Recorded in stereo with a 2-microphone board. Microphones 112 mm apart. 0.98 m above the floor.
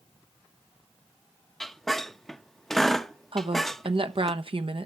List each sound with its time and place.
1.6 s a squeak: 5° left (ahead or behind), 0.7 m
3.3 s a woman speaking: 55° right (ahead or behind), 0.9 m